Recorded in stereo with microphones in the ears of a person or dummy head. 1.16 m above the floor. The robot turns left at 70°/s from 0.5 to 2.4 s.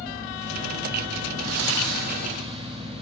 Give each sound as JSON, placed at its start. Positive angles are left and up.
{"t": 1.4, "sound": "breathing", "azimuth_deg": -80, "distance_m": 1.6}